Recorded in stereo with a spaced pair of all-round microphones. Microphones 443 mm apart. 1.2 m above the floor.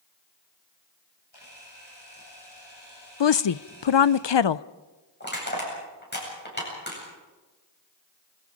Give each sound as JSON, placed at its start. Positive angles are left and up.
{"t": 1.3, "sound": "a camera shutter", "side_deg": 60, "distance_m": 8.0}
{"t": 3.2, "sound": "a woman speaking", "side_deg": 70, "distance_m": 0.5}
{"t": 5.2, "sound": "crushing", "side_deg": 25, "distance_m": 8.5}